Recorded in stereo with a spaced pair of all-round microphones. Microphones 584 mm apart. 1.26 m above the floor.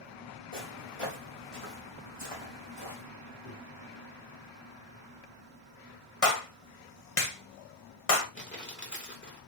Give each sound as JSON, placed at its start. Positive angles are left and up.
{"t": 0.5, "sound": "footsteps", "side_deg": 60, "distance_m": 3.5}
{"t": 3.5, "sound": "a microwave", "side_deg": 60, "distance_m": 1.9}
{"t": 6.2, "sound": "a clap", "side_deg": 65, "distance_m": 1.4}
{"t": 8.3, "sound": "crumpling", "side_deg": 20, "distance_m": 2.5}